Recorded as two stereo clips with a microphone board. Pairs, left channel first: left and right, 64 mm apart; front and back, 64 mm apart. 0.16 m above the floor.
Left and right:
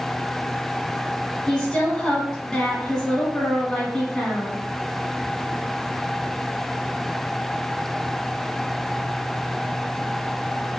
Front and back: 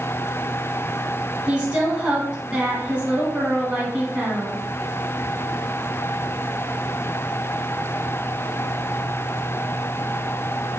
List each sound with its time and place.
1.5 s a woman speaking: 140° left, 1.2 m